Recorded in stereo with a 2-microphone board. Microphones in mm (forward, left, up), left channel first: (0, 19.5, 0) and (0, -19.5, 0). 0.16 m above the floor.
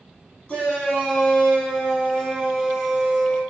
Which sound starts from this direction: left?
A shout, at 0.5 s.